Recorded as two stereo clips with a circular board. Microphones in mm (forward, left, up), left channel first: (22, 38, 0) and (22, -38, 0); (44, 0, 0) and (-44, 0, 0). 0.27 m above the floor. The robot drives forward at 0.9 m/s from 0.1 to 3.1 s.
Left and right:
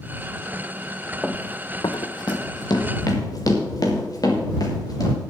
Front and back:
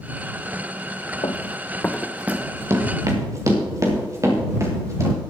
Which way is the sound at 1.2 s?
5° left.